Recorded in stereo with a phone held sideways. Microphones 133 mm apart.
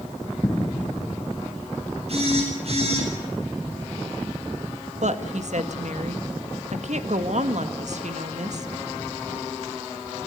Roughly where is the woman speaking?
Right.